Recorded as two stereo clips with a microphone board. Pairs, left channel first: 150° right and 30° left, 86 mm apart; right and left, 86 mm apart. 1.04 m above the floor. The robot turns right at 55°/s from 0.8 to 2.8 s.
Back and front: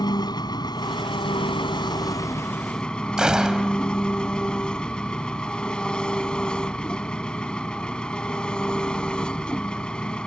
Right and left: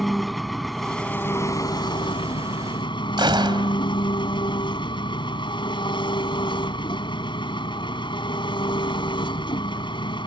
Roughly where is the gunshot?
Left.